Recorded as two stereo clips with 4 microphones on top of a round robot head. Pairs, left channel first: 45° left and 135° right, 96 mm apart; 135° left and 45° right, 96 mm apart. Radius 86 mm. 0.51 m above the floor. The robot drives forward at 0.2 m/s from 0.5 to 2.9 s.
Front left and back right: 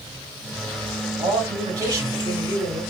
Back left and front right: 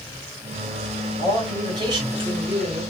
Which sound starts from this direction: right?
A man speaking, at 1.2 s.